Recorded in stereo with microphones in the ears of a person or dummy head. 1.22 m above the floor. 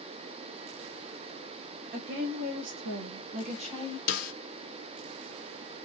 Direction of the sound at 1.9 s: 55° right (ahead or behind).